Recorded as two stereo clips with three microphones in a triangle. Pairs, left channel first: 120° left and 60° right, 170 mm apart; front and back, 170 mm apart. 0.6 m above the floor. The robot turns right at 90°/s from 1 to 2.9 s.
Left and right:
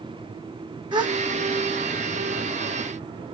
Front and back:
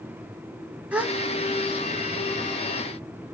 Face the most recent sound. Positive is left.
turn(degrees=65)